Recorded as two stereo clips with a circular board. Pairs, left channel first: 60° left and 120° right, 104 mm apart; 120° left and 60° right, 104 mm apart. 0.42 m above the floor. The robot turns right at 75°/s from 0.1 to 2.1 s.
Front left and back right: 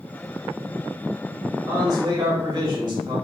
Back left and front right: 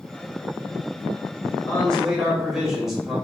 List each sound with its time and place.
1.7 s a man speaking: straight behind, 1.2 m; by 3.1 s 145° right, 1.2 m